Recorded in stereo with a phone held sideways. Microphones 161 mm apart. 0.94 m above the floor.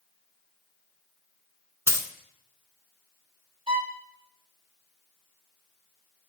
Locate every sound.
1.9 s a dropped coin: 15° right (ahead or behind), 0.9 m
3.7 s a violin: 30° right (ahead or behind), 1.3 m